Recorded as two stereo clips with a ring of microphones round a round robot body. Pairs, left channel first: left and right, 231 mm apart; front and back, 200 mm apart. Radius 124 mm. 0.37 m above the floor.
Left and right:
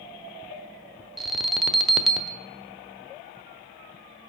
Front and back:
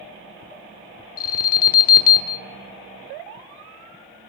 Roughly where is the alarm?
Ahead.